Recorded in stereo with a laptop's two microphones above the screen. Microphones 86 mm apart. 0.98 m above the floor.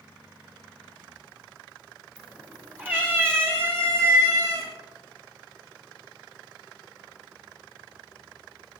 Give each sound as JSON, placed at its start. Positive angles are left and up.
{"t": 2.2, "sound": "a cat meowing", "side_deg": -15, "distance_m": 3.0}